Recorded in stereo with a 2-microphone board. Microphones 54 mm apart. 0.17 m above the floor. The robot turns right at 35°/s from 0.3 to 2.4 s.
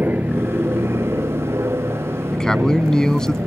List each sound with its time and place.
0.0 s an aircraft: 140° right; by 3.5 s 65° right
2.3 s a man speaking: 10° left (ahead or behind)